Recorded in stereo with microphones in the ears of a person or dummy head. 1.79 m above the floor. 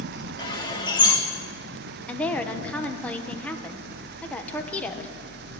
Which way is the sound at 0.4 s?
30° left (ahead or behind).